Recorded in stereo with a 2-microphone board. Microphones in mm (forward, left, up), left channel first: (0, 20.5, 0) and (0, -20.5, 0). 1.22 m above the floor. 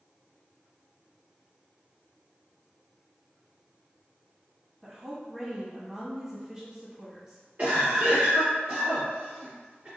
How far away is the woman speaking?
About 0.8 m.